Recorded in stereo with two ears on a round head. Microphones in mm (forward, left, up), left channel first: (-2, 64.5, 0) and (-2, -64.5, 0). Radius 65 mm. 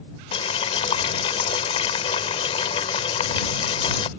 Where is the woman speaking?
I don't hear a woman speaking.